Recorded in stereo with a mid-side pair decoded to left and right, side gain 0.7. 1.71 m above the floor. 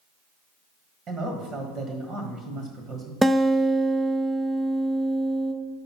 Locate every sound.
1.1 s a man speaking: 40° right, 1.4 m
3.2 s a guitar: 10° right, 0.6 m